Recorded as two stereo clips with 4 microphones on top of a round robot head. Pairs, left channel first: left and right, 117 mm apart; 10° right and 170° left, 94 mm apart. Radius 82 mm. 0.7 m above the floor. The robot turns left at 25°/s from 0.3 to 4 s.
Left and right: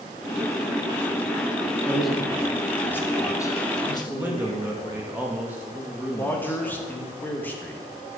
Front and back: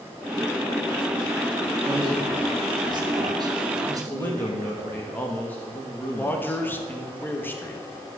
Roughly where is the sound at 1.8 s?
Behind.